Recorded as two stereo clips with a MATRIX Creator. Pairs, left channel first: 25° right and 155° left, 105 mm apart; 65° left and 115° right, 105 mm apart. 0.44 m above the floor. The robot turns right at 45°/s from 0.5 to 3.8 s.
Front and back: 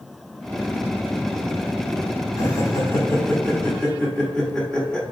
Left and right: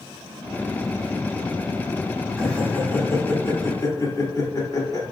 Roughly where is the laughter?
Ahead.